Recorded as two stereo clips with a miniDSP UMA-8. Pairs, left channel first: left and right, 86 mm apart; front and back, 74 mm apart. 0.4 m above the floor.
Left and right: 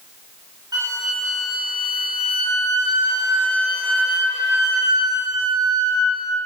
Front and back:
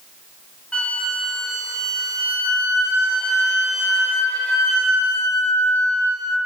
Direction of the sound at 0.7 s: 75° right.